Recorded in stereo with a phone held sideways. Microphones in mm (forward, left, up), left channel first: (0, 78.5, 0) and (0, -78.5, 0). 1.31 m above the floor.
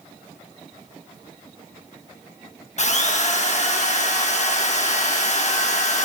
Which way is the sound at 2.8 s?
50° left (ahead or behind).